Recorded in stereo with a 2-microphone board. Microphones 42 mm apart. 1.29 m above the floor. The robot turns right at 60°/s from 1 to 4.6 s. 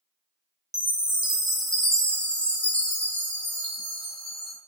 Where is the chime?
15° right (ahead or behind), 0.8 m; by 4.6 s centre (ahead or behind), 0.8 m.